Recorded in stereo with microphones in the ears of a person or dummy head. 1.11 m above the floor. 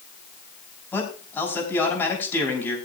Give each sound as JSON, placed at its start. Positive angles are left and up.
{"t": 0.9, "sound": "a man speaking", "side_deg": 10, "distance_m": 5.5}